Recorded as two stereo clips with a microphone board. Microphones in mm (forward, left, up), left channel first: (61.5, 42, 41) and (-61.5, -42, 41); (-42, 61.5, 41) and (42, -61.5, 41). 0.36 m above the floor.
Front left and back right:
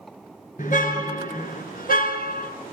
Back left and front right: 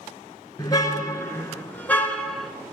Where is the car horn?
60° left, 4 m; by 2.5 s 35° left, 3 m.